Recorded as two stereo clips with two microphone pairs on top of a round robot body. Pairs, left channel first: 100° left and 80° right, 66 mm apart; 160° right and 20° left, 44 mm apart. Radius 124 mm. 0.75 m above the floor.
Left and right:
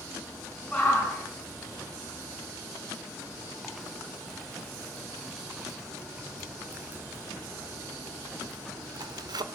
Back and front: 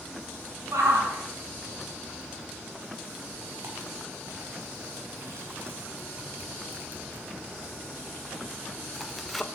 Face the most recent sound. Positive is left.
turn(degrees=-80)